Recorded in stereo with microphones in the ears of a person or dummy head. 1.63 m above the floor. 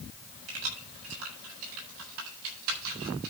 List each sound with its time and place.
0.5 s keys jangling: 85° right, 7.5 m; by 3.3 s 75° right (ahead or behind), 8.5 m